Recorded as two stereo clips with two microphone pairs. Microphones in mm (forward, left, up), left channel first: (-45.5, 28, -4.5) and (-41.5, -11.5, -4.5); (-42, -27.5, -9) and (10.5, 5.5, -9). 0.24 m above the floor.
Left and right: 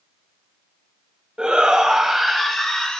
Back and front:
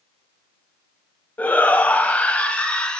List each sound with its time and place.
1.4 s a shout: 125° right, 1.5 m; by 3.0 s 155° left, 1.5 m